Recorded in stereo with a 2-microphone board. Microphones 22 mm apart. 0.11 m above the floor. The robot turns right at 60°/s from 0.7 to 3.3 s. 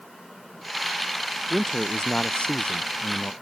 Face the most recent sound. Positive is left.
turn(degrees=110)